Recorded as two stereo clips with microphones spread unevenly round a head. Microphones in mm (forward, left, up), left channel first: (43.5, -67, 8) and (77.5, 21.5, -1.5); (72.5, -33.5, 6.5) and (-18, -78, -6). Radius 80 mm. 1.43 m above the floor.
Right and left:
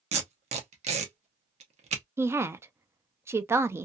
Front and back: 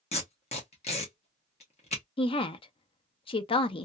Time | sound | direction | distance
0.1 | tape being pulled | 70° left | 0.9 m
2.2 | a woman speaking | straight ahead | 0.6 m